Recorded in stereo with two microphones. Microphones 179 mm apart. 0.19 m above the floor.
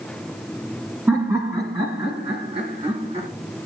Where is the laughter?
15° right (ahead or behind), 1.9 m; by 3.3 s 35° right (ahead or behind), 2.5 m.